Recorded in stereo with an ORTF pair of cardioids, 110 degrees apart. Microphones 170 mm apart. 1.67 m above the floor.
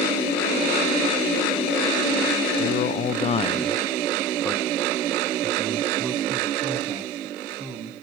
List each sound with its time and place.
2.6 s a man speaking: 65° left, 0.9 m; by 7.9 s 30° right, 3 m